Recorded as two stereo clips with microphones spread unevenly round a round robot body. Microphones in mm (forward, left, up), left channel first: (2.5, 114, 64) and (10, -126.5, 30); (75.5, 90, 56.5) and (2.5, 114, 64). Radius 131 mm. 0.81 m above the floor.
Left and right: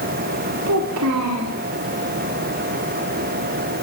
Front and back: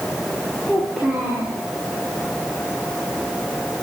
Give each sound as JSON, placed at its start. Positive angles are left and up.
{"t": 0.7, "sound": "a child speaking", "azimuth_deg": -105, "distance_m": 1.5}